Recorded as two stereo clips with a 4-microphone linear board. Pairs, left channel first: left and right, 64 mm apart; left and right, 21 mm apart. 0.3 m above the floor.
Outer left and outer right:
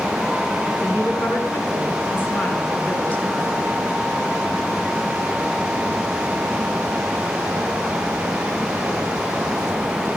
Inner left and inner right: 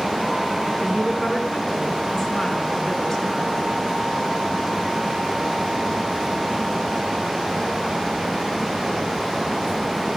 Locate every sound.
0.8 s a woman speaking: 45° left (ahead or behind), 4 m; by 3.6 s 20° left (ahead or behind), 4 m